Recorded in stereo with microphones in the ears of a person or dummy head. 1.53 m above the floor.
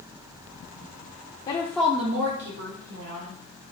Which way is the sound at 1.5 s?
35° left (ahead or behind).